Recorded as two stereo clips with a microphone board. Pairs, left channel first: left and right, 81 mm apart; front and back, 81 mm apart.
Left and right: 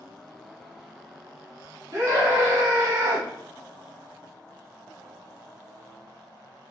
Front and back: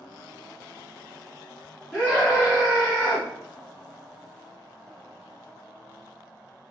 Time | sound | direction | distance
1.9 | a scream | 70° right | 1.9 m